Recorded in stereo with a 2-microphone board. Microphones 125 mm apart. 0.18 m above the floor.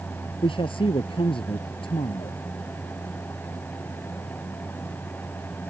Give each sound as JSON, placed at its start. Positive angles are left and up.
{"t": 0.4, "sound": "a man speaking", "side_deg": 45}